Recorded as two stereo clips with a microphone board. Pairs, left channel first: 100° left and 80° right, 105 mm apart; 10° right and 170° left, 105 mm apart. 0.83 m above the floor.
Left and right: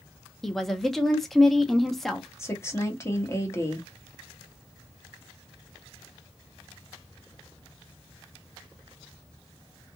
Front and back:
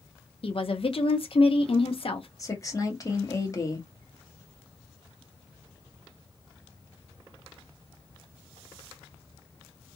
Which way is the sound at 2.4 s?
40° left.